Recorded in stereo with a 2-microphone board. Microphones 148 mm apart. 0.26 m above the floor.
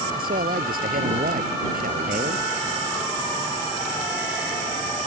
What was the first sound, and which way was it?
A man speaking, 75° right (ahead or behind).